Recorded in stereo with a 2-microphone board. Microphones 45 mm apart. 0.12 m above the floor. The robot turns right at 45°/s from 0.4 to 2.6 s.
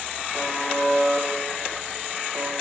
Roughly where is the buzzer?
Left.